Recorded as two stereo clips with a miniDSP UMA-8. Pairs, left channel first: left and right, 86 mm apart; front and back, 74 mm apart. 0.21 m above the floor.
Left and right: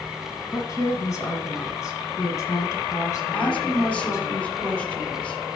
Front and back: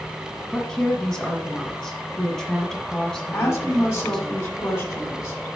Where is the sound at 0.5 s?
75° left, 1.5 m.